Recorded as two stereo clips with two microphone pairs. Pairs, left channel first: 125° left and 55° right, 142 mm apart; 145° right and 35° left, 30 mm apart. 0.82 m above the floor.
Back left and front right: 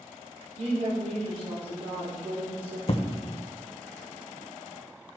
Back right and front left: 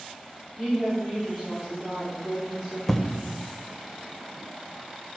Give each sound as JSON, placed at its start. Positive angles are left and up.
{"t": 0.6, "sound": "a woman speaking", "azimuth_deg": -40, "distance_m": 2.5}
{"t": 2.9, "sound": "an explosion", "azimuth_deg": 140, "distance_m": 0.6}